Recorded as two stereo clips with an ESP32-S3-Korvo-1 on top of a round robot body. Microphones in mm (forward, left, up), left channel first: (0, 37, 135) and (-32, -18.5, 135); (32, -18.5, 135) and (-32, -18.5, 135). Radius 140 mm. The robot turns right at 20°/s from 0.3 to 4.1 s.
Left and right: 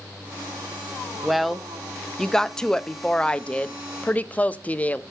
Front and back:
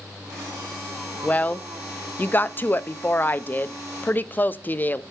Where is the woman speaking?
40° right, 0.6 m; by 5.0 s 20° left, 0.6 m.